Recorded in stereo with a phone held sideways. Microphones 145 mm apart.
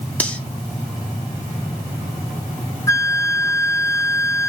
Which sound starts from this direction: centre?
Cutlery clinking, at 0.2 s.